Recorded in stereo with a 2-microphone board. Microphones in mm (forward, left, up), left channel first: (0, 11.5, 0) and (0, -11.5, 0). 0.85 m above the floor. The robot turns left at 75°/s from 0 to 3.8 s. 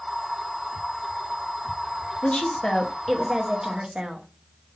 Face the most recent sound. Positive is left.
turn(degrees=-50)